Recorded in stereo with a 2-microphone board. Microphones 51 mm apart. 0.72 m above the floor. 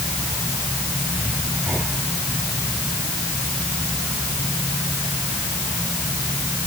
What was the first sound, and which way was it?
Only background noise.